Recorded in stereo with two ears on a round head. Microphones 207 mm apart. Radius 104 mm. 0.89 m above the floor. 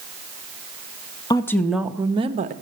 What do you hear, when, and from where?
1.3 s a woman speaking: 15° left (ahead or behind), 0.9 m; by 2.5 s 35° right (ahead or behind), 0.9 m